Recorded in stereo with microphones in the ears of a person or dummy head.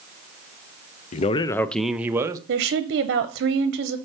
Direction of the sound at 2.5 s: 55° right (ahead or behind).